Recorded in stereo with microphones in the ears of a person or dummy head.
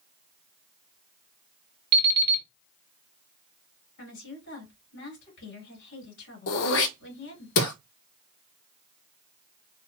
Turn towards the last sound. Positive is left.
turn(degrees=70)  # may be behind; listen again after turning